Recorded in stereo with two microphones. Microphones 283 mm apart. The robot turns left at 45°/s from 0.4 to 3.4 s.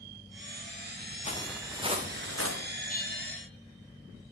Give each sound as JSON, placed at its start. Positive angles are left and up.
{"t": 1.2, "sound": "footsteps", "side_deg": 20, "distance_m": 1.9}
{"t": 2.9, "sound": "a bell", "side_deg": 30, "distance_m": 2.5}